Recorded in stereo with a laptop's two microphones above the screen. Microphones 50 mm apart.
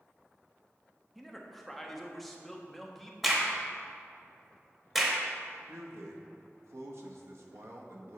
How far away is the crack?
About 0.9 m.